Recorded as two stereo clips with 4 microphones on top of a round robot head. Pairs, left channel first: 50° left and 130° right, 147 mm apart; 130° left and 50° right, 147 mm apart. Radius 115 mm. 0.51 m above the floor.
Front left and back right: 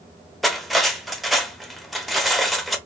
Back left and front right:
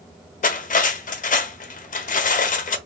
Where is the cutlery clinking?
140° left, 0.7 m.